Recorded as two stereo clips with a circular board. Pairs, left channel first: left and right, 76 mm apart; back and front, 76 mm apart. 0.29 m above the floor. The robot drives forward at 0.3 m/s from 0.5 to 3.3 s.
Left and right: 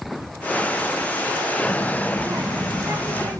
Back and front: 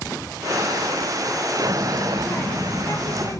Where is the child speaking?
115° right, 1.7 m; by 3.4 s 130° right, 2.0 m.